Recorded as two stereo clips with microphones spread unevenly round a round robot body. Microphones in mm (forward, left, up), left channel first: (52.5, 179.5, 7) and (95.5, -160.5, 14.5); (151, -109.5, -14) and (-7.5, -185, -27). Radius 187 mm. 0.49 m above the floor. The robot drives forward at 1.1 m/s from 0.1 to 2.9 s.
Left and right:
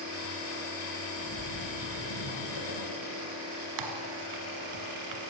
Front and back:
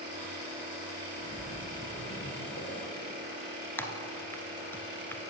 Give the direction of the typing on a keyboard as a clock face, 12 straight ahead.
2 o'clock.